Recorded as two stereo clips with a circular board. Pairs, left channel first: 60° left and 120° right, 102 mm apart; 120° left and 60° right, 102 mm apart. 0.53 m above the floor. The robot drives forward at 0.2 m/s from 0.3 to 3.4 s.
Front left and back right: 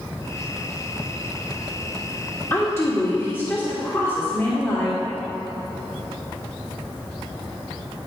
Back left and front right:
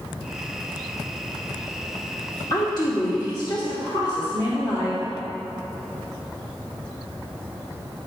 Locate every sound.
2.5 s a woman speaking: 110° left, 1.7 m; by 5.0 s 120° left, 1.7 m